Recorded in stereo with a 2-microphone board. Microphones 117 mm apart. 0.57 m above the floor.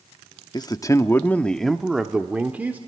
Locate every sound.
0.5 s a man speaking: 35° left (ahead or behind), 0.7 m; by 2.8 s 15° right (ahead or behind), 1.3 m